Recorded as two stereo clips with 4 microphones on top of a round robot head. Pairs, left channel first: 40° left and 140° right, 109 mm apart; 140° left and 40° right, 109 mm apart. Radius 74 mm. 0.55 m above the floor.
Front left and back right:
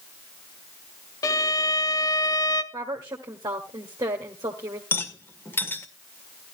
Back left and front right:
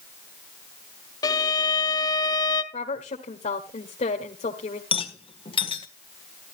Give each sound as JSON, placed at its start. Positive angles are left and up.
{"t": 1.2, "sound": "a violin", "azimuth_deg": 90, "distance_m": 1.1}
{"t": 2.7, "sound": "a woman speaking", "azimuth_deg": 160, "distance_m": 1.7}
{"t": 4.9, "sound": "a rattle", "azimuth_deg": 105, "distance_m": 1.8}